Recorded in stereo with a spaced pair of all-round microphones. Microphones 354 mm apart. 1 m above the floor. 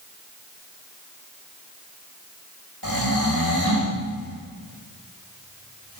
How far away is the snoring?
About 4.5 m.